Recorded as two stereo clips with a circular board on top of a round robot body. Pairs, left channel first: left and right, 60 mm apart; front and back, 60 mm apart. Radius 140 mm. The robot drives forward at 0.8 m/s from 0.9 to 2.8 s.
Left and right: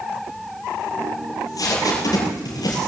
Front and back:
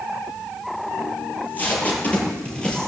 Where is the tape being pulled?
60° left, 5 m; by 2.9 s 75° left, 4.5 m.